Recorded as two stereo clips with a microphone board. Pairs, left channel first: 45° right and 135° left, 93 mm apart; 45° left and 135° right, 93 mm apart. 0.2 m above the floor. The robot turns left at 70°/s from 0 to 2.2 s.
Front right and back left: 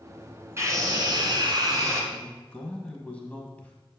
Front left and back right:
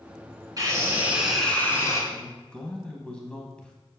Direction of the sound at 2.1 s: 5° right.